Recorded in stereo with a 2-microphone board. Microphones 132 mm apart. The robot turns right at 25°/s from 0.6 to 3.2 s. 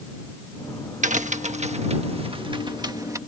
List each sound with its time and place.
1.0 s a crack: 70° right (ahead or behind); by 3.2 s 25° right (ahead or behind)